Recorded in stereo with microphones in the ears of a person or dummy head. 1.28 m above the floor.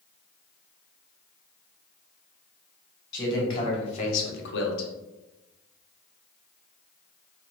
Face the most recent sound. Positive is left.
turn(degrees=80)